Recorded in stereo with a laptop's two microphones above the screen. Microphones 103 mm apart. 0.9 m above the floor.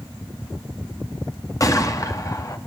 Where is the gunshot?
35° left (ahead or behind), 2 m.